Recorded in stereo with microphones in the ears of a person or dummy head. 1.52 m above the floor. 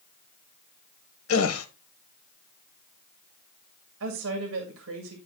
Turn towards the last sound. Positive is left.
turn(degrees=-80)